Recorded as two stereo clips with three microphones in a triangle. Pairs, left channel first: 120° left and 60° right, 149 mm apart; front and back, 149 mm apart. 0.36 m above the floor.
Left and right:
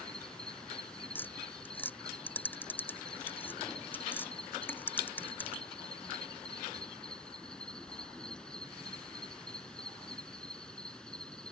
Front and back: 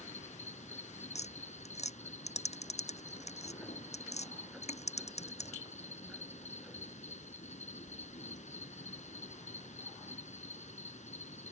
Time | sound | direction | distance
0.0 | an insect | 35° left | ?
1.1 | tapping | 40° left | ?